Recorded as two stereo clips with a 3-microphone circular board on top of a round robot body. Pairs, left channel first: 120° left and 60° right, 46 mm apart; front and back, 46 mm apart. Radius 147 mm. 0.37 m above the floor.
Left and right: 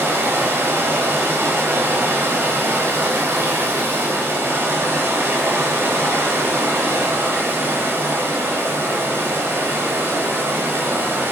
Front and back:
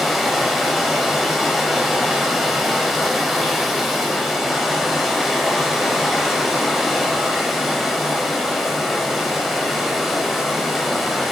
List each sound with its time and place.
0.0 s running water: 95° right, 1.1 m